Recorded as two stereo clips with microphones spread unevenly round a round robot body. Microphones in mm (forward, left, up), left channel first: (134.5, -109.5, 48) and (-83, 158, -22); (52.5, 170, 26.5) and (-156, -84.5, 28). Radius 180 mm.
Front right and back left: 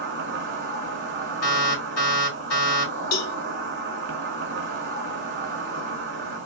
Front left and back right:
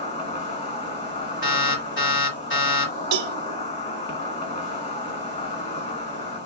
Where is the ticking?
No ticking in this recording.